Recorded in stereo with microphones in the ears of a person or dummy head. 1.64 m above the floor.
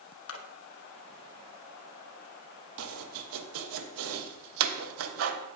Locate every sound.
0.3 s a splash: 80° left, 1.4 m
2.8 s chopping: 80° right, 1.3 m